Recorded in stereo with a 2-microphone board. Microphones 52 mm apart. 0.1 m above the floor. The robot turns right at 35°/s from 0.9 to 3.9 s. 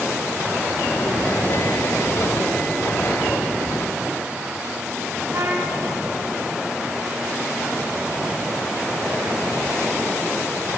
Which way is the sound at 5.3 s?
50° right (ahead or behind).